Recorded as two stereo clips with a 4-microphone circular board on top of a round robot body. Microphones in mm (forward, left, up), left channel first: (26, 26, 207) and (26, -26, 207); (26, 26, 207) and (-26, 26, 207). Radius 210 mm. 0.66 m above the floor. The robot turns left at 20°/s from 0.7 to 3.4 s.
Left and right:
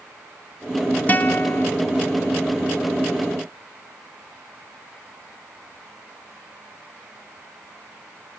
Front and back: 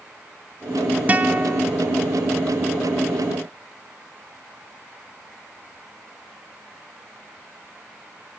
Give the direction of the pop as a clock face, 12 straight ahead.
No pop in this recording.